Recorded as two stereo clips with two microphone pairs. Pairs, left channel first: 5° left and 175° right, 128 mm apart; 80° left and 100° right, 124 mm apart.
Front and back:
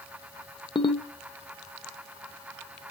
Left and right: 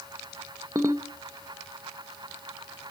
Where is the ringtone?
40° right, 0.6 m.